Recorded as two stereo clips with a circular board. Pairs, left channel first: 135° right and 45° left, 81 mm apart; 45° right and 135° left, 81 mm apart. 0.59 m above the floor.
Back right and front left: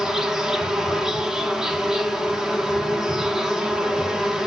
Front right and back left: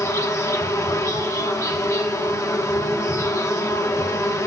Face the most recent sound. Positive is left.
turn(degrees=-35)